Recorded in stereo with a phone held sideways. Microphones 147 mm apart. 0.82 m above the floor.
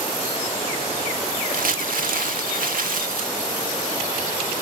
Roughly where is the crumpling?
Right.